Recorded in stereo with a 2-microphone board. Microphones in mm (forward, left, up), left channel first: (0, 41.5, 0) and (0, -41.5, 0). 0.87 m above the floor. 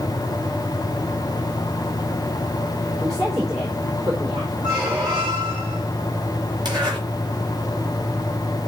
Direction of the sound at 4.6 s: 60° right (ahead or behind).